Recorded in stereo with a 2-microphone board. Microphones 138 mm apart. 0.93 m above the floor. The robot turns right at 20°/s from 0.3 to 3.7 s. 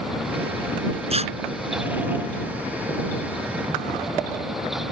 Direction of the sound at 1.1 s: 45° right (ahead or behind).